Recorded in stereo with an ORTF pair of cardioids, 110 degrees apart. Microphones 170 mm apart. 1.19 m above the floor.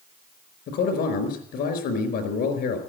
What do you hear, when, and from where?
0.7 s a man speaking: 70° left, 4.5 m